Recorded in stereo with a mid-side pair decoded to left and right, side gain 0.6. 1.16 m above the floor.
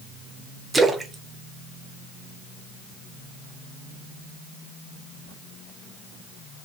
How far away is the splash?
About 0.6 m.